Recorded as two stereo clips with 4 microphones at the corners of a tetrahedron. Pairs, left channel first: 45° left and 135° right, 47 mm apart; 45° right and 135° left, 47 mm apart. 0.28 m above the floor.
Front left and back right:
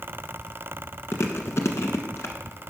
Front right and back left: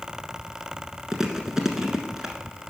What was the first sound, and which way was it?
Chewing, 55° left.